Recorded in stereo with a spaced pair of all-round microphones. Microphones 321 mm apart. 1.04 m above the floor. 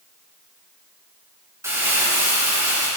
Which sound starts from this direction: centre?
Crumpling, at 1.6 s.